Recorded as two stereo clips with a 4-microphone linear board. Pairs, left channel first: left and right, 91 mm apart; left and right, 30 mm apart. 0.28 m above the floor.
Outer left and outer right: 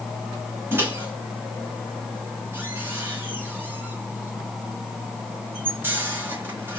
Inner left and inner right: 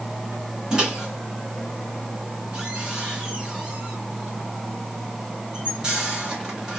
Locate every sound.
0.7 s a microwave: 25° right (ahead or behind), 1.2 m